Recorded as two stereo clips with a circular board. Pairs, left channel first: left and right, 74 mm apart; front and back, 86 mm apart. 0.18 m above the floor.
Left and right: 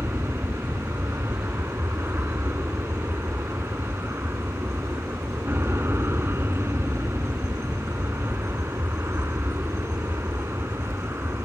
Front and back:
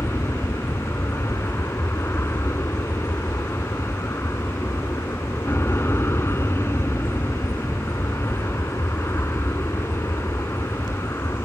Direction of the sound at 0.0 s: 50° right.